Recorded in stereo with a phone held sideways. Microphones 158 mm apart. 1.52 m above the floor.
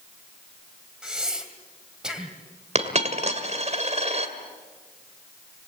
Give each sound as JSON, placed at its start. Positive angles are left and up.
{"t": 1.0, "sound": "breathing", "side_deg": -5, "distance_m": 2.5}
{"t": 2.8, "sound": "a dropped coin", "side_deg": -45, "distance_m": 2.0}